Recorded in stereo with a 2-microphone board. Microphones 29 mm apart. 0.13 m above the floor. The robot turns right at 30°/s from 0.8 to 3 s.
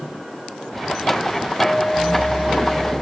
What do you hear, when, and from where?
1.6 s a clink: 85° left, 2.5 m; by 2.9 s 125° left, 2.5 m